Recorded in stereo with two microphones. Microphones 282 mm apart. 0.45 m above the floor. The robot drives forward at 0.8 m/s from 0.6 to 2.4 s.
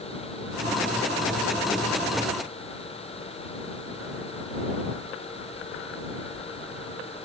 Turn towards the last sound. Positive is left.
No sound to turn to.